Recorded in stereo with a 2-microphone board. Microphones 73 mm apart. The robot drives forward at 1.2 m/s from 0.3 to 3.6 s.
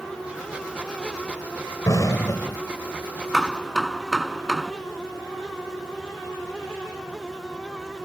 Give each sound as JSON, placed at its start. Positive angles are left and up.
{"t": 1.9, "sound": "an explosion", "side_deg": 45}
{"t": 3.3, "sound": "hammering", "side_deg": 0}